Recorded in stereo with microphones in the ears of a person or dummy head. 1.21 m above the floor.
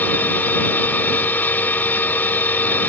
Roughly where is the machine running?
Centre.